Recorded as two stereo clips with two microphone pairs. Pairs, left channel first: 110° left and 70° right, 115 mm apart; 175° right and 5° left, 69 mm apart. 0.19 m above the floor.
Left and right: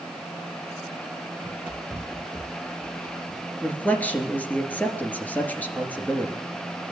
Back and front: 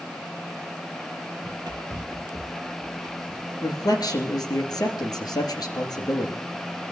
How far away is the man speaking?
About 2.5 m.